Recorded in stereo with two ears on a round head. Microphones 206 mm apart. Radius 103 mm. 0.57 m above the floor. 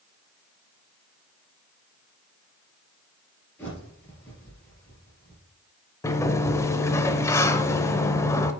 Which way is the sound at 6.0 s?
10° left (ahead or behind).